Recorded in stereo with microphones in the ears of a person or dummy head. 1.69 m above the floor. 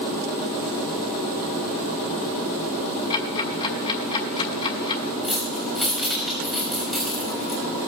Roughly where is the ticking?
Left.